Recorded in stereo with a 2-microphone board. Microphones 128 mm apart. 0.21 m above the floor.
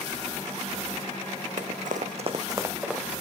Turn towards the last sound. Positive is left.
turn(degrees=0)  # may be behind; listen again after turning